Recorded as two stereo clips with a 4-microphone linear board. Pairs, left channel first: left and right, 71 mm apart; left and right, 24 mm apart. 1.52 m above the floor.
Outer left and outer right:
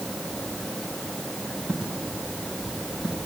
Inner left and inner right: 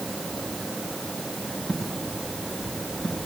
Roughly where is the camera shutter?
I don't hear a camera shutter.